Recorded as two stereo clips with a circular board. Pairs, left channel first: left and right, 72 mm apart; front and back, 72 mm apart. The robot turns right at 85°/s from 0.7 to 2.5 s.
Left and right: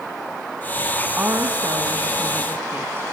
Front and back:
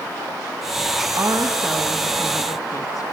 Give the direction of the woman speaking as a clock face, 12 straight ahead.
5 o'clock.